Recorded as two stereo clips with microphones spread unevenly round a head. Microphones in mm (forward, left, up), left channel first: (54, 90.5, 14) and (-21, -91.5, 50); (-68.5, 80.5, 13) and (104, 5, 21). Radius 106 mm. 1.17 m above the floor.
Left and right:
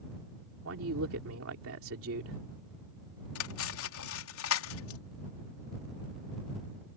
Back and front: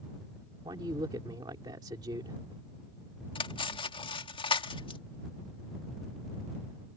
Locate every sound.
0.7 s a man speaking: 95° right
3.4 s cutlery clinking: 90° left